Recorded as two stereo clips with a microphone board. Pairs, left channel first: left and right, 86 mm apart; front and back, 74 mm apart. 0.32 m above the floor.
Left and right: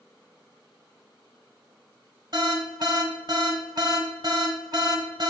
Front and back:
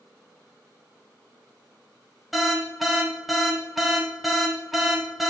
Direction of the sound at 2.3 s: 90° right.